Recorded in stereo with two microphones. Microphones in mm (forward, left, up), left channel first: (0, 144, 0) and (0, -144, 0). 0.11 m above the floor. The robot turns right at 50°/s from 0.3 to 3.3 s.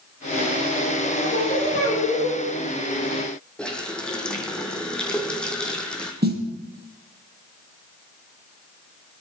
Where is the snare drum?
35° right (ahead or behind), 4 m.